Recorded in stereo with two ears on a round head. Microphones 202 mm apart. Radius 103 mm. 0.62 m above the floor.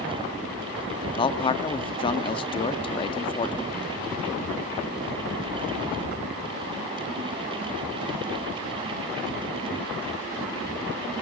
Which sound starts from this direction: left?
A man speaking, at 1.1 s.